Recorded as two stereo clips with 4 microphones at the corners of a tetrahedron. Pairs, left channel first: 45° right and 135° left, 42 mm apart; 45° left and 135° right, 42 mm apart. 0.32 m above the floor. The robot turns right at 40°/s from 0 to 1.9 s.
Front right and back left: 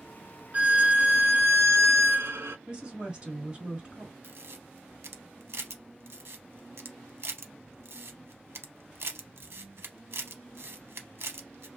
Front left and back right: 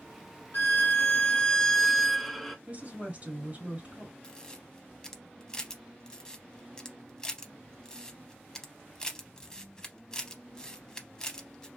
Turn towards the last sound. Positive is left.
turn(degrees=120)